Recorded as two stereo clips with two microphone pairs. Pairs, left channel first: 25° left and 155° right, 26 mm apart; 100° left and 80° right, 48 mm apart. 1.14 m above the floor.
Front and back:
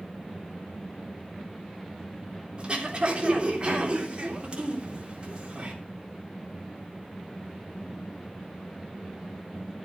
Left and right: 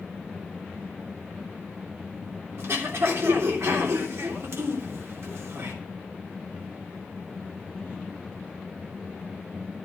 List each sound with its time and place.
2.6 s throat clearing: 100° right, 3 m